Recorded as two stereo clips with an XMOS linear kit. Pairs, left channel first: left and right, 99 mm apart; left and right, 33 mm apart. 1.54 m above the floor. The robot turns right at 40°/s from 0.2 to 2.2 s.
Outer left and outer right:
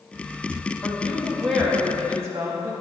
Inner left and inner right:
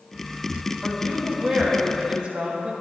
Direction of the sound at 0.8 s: 155° left.